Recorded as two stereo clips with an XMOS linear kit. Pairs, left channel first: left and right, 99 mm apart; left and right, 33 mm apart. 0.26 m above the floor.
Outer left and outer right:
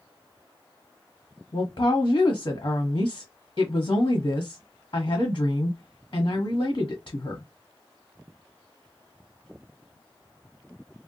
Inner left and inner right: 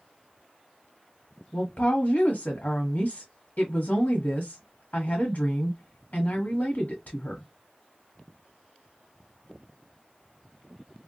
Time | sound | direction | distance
1.5 | a woman speaking | 50° left (ahead or behind) | 1.3 m